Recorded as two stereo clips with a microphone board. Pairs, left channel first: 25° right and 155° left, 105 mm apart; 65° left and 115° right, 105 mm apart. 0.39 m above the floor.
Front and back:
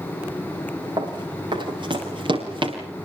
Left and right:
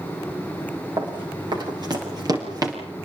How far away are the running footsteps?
About 8.5 m.